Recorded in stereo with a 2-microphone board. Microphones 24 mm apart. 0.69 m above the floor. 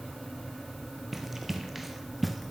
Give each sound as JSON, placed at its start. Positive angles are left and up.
{"t": 1.1, "sound": "running footsteps", "side_deg": -5, "distance_m": 1.2}